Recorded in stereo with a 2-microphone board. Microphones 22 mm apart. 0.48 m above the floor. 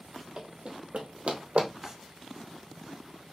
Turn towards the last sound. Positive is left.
turn(degrees=-20)  # may be behind; listen again after turning